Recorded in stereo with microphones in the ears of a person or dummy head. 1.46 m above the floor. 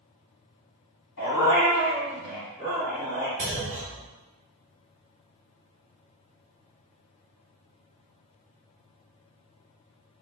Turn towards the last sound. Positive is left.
turn(degrees=-15)  # may be behind; listen again after turning